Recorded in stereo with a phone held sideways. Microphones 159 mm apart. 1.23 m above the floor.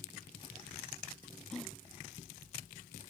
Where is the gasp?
5° left (ahead or behind).